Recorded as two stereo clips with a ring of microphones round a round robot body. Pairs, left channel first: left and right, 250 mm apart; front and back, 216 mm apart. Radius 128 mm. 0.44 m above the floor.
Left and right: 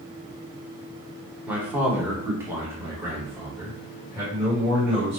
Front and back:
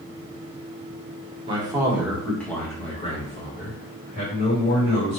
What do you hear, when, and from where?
1.5 s a man speaking: 165° right, 1.2 m; by 5.2 s 10° right, 2 m